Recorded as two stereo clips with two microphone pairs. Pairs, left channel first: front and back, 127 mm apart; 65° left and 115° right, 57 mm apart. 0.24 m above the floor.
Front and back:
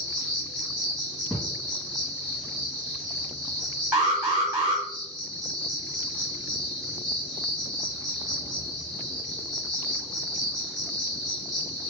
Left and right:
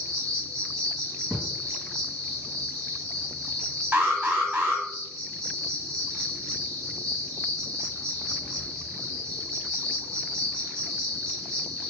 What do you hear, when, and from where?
0.0 s an insect: 10° right, 1.4 m
1.3 s a thud: 60° right, 1.9 m
3.9 s an alarm: 120° right, 1.3 m